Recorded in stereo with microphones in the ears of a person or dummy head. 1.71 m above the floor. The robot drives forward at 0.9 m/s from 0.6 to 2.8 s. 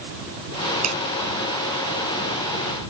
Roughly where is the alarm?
No alarm in this recording.